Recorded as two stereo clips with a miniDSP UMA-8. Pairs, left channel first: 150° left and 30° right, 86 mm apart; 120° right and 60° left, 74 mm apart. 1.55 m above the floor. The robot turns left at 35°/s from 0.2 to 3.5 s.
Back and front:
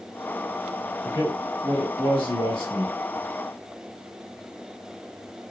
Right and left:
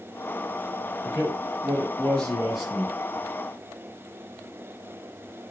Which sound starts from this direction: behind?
A man speaking, at 1.0 s.